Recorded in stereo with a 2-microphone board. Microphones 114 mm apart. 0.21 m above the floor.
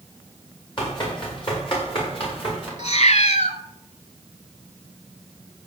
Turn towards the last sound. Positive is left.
turn(degrees=75)  # may be behind; listen again after turning